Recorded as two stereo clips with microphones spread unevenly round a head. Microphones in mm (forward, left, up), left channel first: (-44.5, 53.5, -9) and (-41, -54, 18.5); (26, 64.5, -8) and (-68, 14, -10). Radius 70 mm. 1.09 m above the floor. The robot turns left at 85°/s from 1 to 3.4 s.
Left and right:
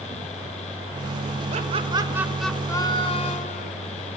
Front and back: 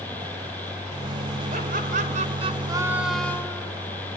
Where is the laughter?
105° right, 5 m; by 3.7 s 95° left, 5 m.